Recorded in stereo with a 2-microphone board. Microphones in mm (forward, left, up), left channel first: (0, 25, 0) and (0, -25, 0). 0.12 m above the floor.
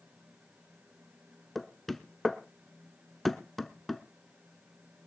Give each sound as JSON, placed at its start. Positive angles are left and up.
{"t": 1.6, "sound": "knocking", "side_deg": 5, "distance_m": 0.8}